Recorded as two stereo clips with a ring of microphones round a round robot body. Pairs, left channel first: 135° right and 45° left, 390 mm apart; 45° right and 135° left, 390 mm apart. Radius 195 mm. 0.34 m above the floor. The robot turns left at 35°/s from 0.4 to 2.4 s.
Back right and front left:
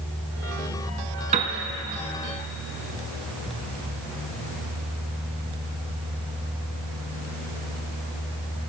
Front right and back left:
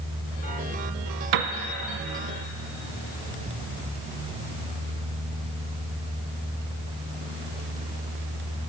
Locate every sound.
1.3 s a piano: 120° left, 0.8 m; by 1.5 s 110° left, 0.8 m